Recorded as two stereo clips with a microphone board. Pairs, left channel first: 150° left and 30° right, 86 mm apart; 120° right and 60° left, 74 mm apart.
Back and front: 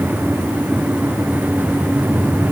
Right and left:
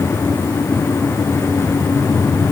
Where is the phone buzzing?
I don't hear a phone buzzing.